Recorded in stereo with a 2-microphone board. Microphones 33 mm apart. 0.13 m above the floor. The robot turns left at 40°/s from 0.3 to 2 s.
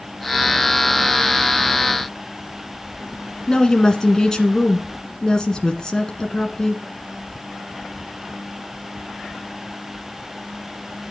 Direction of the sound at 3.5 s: 20° left (ahead or behind).